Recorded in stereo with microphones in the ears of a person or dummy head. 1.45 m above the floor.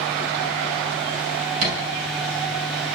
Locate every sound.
1.6 s a thud: 45° right (ahead or behind), 8.5 m